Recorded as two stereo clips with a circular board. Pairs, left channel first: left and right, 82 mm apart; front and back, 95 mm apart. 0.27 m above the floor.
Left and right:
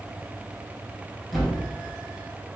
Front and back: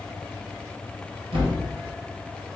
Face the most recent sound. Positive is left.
turn(degrees=180)